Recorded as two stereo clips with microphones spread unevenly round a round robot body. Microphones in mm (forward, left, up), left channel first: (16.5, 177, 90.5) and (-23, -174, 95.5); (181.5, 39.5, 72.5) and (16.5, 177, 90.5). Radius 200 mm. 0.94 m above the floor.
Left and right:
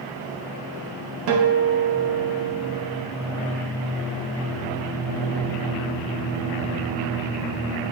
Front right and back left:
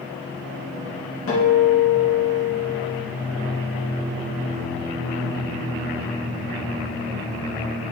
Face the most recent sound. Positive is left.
turn(degrees=-65)